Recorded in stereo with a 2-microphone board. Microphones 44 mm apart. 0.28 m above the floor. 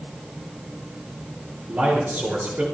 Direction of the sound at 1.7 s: 45° right (ahead or behind).